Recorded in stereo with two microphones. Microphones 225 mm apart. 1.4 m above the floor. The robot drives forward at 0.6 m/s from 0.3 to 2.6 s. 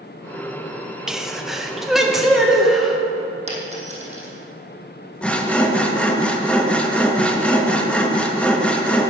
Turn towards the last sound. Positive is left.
turn(degrees=5)  # may be behind; listen again after turning